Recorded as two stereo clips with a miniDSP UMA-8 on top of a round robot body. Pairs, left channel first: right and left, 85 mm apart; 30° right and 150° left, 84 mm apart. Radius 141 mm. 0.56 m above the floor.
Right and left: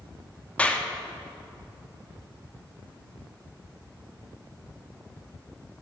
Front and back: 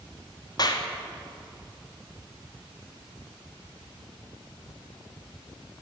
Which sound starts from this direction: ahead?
A clap, at 0.6 s.